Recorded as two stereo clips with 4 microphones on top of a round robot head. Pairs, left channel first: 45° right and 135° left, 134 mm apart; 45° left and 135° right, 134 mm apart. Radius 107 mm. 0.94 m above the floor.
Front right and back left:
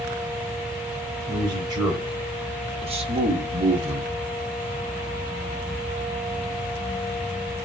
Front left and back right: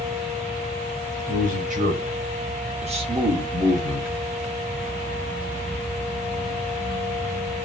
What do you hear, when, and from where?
1.3 s a man speaking: 160° right, 4.5 m; by 4.2 s 145° left, 1.6 m